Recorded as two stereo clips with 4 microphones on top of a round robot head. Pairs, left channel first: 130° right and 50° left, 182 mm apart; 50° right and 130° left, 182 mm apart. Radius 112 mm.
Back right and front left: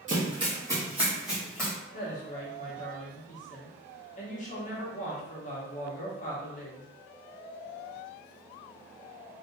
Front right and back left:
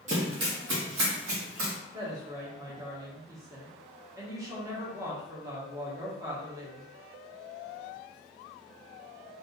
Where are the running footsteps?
90° left, 1.2 m; by 1.7 s 145° left, 1.8 m.